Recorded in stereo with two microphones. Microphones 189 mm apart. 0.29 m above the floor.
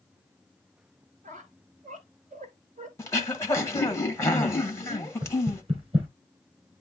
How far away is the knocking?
About 3.5 m.